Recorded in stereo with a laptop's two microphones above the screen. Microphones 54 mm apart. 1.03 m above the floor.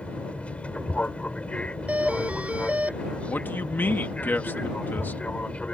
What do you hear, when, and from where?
0.0 s an aircraft: 25° left (ahead or behind)
1.9 s a doorbell: 25° right (ahead or behind)
3.3 s a man speaking: 35° left (ahead or behind)